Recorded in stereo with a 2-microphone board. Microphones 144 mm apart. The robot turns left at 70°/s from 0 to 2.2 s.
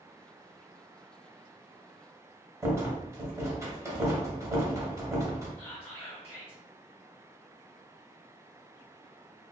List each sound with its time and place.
2.6 s a rattle: 20° right (ahead or behind), 0.8 m
5.6 s whispering: 15° left (ahead or behind), 0.9 m